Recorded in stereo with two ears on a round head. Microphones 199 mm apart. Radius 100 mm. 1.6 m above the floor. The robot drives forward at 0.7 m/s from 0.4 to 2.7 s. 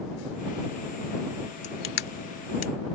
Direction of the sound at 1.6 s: 50° left (ahead or behind).